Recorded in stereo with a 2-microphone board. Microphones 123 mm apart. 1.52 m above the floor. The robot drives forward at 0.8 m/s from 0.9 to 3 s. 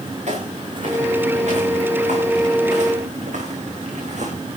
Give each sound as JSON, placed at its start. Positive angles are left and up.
{"t": 0.3, "sound": "footsteps", "side_deg": -70, "distance_m": 9.5}